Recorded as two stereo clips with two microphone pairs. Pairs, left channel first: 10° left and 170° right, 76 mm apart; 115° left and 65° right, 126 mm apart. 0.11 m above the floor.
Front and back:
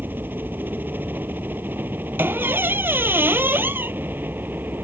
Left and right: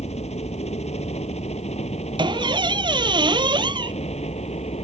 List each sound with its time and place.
0.0 s a helicopter: 130° left
2.2 s a squeak: 110° right